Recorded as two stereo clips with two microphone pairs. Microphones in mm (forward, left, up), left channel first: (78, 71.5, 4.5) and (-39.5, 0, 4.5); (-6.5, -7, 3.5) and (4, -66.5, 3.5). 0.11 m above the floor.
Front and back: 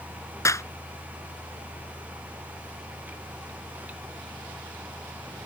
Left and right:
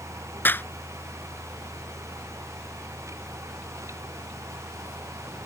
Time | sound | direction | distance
0.5 | a clap | 80° left | ?